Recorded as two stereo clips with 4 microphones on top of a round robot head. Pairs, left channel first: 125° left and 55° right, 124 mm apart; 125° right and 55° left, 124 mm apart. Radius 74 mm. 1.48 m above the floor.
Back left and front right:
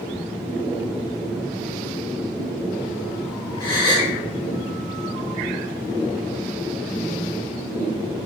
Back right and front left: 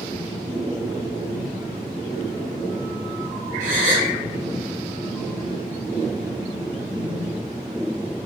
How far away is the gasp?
About 1.9 m.